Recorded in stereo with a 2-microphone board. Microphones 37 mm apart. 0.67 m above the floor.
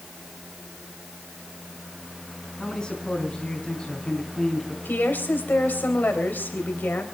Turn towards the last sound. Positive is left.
turn(degrees=60)  # may be behind; listen again after turning